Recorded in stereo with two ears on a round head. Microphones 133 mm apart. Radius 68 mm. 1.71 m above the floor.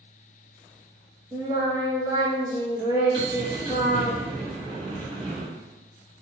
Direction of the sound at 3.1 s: 40° right (ahead or behind).